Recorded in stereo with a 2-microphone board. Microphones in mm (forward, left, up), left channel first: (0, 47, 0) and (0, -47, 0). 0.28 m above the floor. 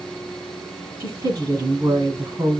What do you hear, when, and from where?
1.0 s a woman speaking: 55° right (ahead or behind), 2 m